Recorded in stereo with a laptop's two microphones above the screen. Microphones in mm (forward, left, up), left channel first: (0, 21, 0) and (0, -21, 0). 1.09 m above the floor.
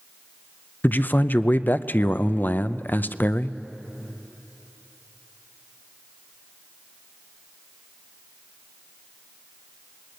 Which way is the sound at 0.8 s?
45° left (ahead or behind).